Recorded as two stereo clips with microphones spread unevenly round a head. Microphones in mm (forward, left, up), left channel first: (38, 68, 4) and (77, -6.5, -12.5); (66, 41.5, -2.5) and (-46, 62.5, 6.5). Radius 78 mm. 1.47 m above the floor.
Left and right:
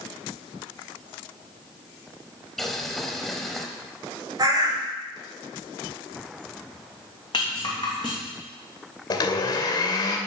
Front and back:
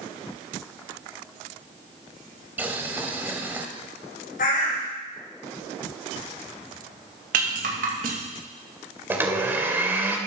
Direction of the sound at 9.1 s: 105° left.